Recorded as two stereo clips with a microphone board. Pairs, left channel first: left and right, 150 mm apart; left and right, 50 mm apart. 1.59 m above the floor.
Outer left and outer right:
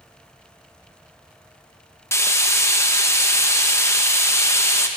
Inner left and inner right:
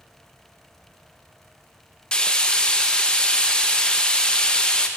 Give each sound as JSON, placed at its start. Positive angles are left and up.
{"t": 2.1, "sound": "frying", "side_deg": 20, "distance_m": 0.8}